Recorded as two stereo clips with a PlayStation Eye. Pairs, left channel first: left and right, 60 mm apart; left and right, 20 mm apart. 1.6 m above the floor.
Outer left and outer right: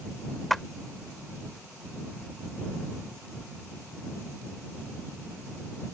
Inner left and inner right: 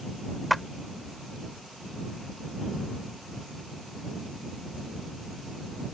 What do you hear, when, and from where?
0.5 s a clap: 5° left (ahead or behind)